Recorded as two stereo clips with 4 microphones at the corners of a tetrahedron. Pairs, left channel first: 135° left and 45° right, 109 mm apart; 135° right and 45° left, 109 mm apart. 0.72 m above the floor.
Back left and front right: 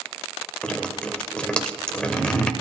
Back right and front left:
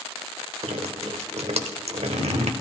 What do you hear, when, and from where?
0.6 s dripping: 55° left, 0.8 m